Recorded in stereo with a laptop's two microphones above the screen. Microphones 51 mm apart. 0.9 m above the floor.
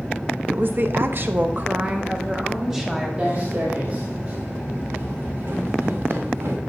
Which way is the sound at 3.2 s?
25° right (ahead or behind).